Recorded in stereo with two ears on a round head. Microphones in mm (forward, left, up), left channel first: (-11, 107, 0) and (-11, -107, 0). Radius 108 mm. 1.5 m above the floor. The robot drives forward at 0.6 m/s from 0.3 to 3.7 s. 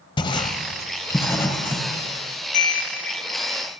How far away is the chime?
About 1.8 m.